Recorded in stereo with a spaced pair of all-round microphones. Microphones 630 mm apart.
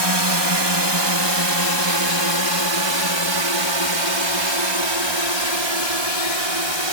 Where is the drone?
40° right (ahead or behind); by 6.9 s 45° right (ahead or behind).